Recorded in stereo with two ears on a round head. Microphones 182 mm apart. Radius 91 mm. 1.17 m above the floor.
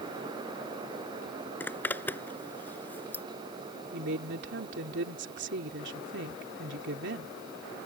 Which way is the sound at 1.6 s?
10° left (ahead or behind).